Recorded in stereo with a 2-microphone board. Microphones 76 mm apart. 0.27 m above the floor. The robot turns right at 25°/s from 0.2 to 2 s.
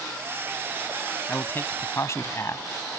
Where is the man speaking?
25° left (ahead or behind); by 2.6 s 40° left (ahead or behind).